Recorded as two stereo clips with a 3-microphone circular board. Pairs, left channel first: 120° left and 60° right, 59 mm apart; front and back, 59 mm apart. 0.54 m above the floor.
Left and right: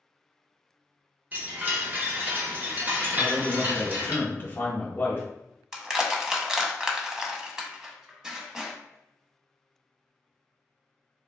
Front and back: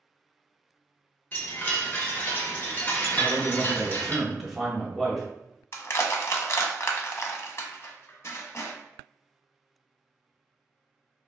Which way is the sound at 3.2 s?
90° left.